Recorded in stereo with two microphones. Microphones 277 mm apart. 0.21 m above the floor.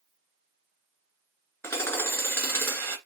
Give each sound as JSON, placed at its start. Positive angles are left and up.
{"t": 1.6, "sound": "hammering", "side_deg": 10, "distance_m": 1.9}